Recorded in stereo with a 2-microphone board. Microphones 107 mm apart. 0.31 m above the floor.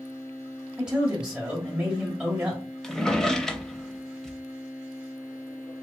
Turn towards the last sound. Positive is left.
turn(degrees=5)  # may be behind; listen again after turning